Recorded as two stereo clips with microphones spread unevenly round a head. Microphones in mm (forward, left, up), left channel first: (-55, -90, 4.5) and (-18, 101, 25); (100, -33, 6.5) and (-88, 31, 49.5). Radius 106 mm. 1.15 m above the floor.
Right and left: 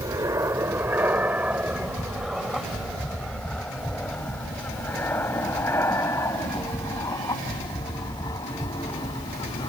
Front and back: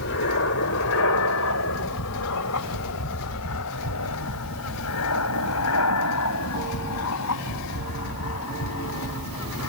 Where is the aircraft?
5° left; by 9.7 s 30° right.